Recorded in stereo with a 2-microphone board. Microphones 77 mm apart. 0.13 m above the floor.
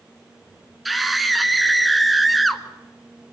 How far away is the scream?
About 1.6 m.